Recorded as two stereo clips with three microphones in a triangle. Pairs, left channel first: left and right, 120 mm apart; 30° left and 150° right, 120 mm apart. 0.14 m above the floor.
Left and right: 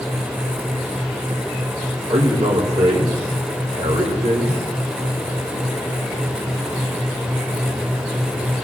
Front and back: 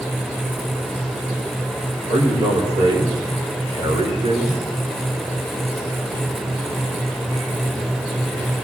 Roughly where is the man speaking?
Right.